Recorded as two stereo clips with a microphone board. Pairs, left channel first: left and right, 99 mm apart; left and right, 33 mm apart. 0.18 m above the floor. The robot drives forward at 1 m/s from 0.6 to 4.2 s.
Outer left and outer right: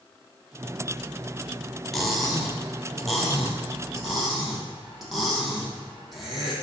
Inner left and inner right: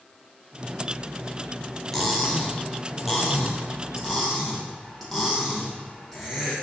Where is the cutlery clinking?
5° left (ahead or behind), 1.7 m; by 6.5 s centre (ahead or behind), 4 m.